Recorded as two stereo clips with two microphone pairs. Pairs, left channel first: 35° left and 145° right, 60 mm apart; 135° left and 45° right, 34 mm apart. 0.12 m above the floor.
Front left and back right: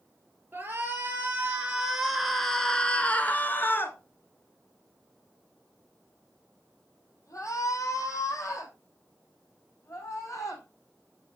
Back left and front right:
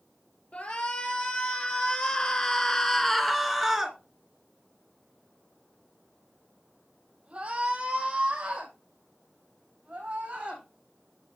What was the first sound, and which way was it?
A shout, 165° left.